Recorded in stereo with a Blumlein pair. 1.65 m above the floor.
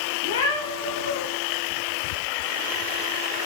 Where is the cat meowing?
60° left, 3.5 m.